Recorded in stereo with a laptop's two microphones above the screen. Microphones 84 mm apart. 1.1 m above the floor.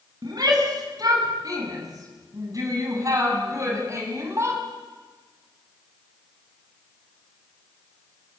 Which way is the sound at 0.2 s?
50° right (ahead or behind).